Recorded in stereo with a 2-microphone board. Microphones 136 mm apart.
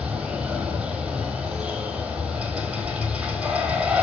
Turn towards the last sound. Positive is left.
turn(degrees=-5)  # may be behind; listen again after turning